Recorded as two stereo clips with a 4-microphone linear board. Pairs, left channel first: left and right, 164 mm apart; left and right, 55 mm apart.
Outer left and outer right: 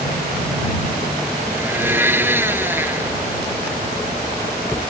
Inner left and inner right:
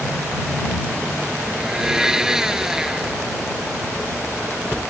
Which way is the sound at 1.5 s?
15° right (ahead or behind).